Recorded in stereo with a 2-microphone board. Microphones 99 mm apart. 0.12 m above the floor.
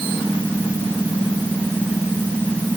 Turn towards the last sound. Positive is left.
No sound to turn to.